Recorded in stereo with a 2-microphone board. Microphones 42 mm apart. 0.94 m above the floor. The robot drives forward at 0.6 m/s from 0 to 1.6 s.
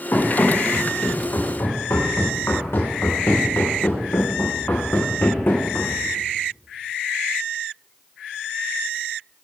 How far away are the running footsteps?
About 5.5 m.